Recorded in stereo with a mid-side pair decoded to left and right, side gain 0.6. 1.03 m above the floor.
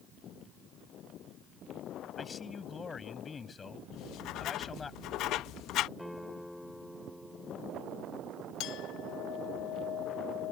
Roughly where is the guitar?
Ahead.